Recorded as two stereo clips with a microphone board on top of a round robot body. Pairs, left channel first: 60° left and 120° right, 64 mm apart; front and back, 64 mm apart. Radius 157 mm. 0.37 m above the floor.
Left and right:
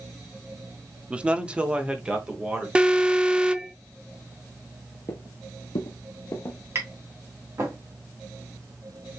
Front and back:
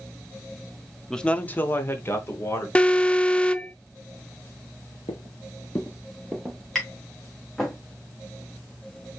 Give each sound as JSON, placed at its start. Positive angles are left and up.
{"t": 1.1, "sound": "a man speaking", "azimuth_deg": -75, "distance_m": 0.8}
{"t": 2.8, "sound": "an alarm", "azimuth_deg": -60, "distance_m": 0.7}
{"t": 5.1, "sound": "footsteps", "azimuth_deg": 15, "distance_m": 0.6}
{"t": 6.8, "sound": "tapping", "azimuth_deg": -85, "distance_m": 2.5}